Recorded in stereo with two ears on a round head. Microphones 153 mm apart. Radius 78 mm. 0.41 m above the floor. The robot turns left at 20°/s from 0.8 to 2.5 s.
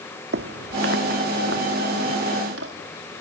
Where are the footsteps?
70° right (ahead or behind), 1.3 m.